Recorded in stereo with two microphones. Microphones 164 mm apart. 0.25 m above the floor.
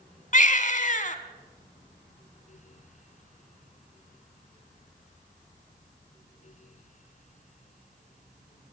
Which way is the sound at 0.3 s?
50° left (ahead or behind).